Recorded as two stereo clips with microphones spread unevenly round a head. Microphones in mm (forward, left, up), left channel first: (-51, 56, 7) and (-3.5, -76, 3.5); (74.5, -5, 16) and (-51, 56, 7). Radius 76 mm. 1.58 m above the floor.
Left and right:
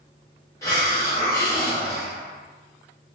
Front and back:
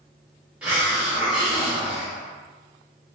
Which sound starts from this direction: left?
A hiss, at 0.6 s.